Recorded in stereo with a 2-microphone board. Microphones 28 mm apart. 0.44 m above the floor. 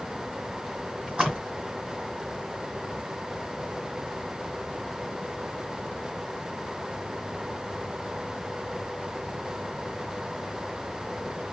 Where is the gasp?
I don't hear a gasp.